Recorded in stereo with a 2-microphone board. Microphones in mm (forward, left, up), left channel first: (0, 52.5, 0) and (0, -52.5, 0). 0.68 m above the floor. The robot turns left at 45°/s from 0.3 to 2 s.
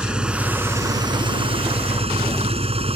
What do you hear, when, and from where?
0.0 s an engine running: 10° right; by 3.0 s 85° right